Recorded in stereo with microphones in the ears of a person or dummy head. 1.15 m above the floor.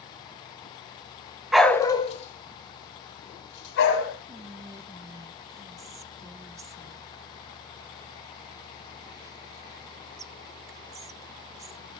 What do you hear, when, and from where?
1.5 s a dog barking: 10° right (ahead or behind), 0.8 m; by 4.2 s 70° left (ahead or behind), 3 m
4.3 s whispering: 20° right (ahead or behind), 0.7 m